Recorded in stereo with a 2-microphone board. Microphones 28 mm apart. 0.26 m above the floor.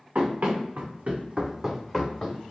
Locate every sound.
0.1 s running footsteps: 80° right, 1.4 m; by 2.4 s 30° left (ahead or behind), 1.1 m